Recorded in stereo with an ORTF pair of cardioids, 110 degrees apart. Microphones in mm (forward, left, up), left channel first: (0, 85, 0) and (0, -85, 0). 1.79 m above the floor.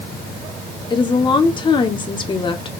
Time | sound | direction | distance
0.9 | a woman speaking | 30° left | 1.3 m